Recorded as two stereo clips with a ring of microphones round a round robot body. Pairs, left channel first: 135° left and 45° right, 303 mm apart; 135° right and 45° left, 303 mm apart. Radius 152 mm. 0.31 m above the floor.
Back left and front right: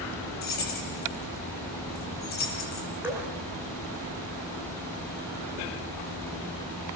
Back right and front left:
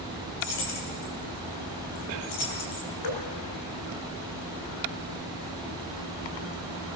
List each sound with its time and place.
0.4 s keys jangling: 165° right, 7 m
3.0 s dripping: 130° right, 7 m